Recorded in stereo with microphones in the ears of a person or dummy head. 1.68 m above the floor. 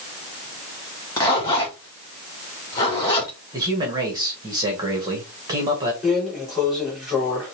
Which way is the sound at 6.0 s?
5° right (ahead or behind).